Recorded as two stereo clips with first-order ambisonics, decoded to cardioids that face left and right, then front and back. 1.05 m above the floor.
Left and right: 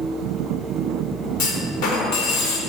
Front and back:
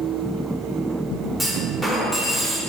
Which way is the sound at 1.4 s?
80° left.